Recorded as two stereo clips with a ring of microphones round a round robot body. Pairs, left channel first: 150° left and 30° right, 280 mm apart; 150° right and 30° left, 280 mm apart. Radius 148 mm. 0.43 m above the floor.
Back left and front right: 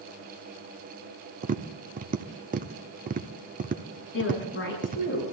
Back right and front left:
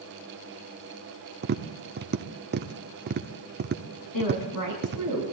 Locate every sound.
1.4 s tapping: 10° left, 0.8 m
4.1 s a woman speaking: 160° right, 5.5 m